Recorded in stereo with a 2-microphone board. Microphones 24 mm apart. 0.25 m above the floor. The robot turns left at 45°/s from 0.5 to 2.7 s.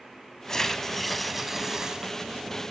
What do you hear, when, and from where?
0.5 s tearing paper: 35° left, 0.8 m; by 2.1 s 40° right, 0.8 m